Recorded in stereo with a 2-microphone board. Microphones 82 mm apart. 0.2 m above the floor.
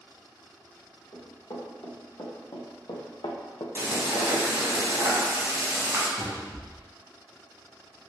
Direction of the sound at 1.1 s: 50° left (ahead or behind).